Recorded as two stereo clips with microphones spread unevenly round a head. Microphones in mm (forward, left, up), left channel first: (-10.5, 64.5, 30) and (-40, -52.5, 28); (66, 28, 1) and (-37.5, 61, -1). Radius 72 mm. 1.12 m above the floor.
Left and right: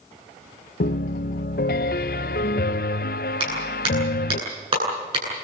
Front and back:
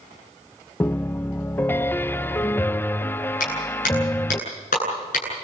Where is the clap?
50° right, 9.5 m.